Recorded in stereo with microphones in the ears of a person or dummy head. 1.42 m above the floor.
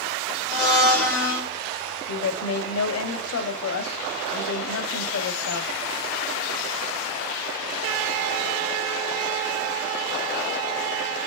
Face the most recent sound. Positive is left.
turn(degrees=80)